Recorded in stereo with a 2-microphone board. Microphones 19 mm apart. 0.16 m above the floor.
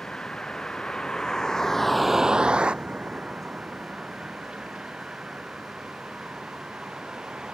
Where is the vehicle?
55° left (ahead or behind); by 7.5 s 70° right (ahead or behind).